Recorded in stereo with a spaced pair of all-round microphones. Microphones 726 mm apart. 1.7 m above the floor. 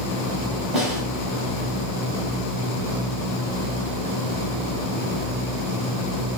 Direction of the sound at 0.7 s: 55° right (ahead or behind).